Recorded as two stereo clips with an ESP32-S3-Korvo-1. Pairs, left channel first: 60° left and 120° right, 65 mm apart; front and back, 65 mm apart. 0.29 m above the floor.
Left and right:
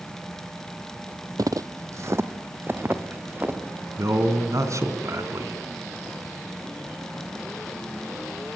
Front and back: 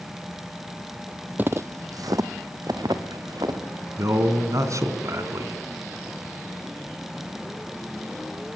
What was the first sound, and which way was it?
Footsteps, 120° right.